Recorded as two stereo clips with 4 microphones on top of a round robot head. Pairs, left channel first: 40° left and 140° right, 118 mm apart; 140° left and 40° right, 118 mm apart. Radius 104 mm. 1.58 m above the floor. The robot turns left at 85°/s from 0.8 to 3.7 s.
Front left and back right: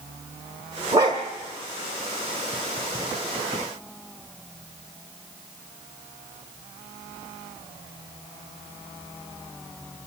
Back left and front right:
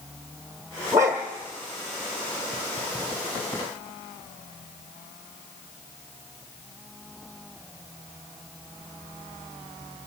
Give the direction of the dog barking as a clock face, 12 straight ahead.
3 o'clock.